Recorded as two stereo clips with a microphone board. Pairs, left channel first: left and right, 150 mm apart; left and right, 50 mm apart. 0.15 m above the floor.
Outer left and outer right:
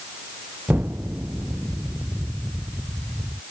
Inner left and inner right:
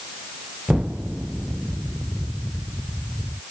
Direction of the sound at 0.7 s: 10° right (ahead or behind).